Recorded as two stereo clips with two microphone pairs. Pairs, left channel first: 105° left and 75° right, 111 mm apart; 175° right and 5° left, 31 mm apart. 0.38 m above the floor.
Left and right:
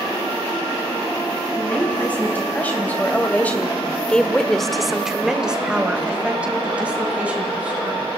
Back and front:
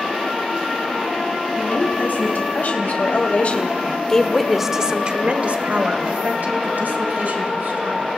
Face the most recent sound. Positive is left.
turn(degrees=0)